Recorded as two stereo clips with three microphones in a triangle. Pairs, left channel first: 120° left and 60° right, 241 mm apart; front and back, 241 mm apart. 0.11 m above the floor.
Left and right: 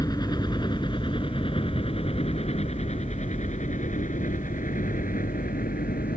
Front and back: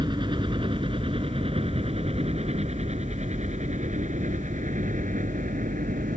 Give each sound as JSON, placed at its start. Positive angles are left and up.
{"t": 0.0, "sound": "a helicopter", "azimuth_deg": 160}